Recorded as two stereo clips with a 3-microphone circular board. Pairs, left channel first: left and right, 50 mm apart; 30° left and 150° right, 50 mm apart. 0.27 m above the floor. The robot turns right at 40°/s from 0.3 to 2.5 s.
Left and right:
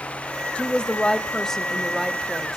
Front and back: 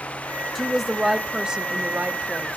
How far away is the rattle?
I don't hear a rattle.